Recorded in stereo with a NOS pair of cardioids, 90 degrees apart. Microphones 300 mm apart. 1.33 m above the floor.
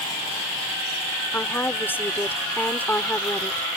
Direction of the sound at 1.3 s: 5° left.